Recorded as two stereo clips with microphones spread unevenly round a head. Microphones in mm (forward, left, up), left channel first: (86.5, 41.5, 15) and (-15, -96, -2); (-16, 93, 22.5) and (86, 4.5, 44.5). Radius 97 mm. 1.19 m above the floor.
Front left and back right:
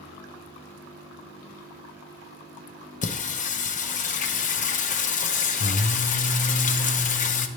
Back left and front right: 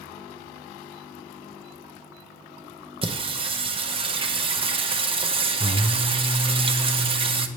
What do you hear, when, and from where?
3.0 s singing: 10° left, 0.7 m